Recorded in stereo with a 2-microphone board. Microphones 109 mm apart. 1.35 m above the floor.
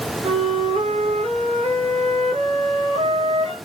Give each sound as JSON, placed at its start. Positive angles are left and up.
{"t": 0.2, "sound": "a flute", "side_deg": -80, "distance_m": 3.0}